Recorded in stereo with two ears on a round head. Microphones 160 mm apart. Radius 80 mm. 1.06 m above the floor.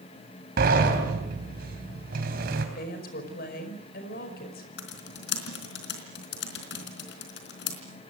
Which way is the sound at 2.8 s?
55° left (ahead or behind).